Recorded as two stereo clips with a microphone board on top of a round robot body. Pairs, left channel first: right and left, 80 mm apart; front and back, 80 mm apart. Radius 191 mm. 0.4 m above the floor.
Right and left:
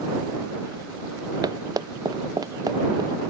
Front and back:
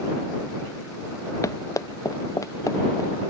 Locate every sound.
1.4 s running footsteps: 50° left